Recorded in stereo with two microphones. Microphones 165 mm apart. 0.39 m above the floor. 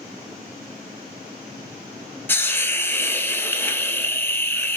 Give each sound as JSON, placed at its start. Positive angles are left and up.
{"t": 2.3, "sound": "a hiss", "side_deg": 10, "distance_m": 0.5}